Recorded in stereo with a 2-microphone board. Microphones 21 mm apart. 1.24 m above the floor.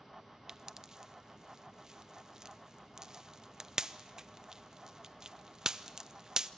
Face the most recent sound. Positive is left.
turn(degrees=-25)  # may be behind; listen again after turning